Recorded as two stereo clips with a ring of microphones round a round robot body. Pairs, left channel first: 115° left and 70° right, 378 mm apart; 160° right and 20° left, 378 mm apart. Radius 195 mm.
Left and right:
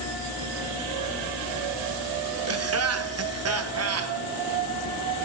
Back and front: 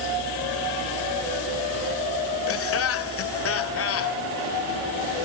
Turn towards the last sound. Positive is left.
turn(degrees=-110)